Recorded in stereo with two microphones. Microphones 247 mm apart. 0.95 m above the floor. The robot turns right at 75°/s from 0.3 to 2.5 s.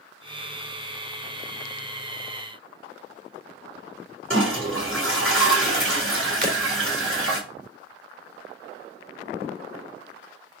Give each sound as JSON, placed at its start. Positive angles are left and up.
{"t": 4.3, "sound": "a toilet flushing", "side_deg": -55, "distance_m": 4.0}
{"t": 6.4, "sound": "breaking glass", "side_deg": -35, "distance_m": 2.0}